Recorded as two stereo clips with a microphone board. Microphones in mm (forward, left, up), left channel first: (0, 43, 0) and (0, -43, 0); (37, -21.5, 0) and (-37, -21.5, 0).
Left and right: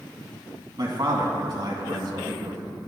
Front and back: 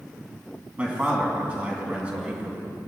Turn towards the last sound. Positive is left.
turn(degrees=-110)